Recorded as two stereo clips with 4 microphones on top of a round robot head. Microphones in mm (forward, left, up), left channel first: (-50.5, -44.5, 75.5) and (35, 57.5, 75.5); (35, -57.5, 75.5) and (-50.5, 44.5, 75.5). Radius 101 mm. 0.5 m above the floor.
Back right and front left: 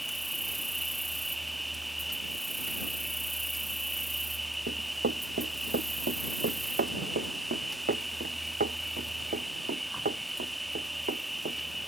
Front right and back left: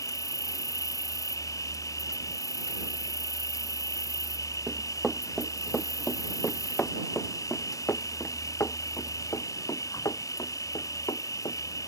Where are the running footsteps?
45° left; by 11.6 s 15° left.